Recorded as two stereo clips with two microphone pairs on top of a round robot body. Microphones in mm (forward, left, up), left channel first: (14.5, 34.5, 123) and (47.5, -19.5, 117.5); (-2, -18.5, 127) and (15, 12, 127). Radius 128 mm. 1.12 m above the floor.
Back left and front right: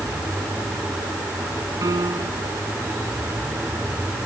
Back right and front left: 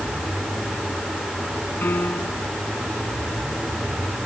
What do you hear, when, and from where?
1.8 s a piano: 90° right